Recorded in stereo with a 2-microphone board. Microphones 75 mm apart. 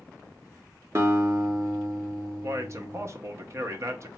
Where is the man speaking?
45° right (ahead or behind), 0.5 m.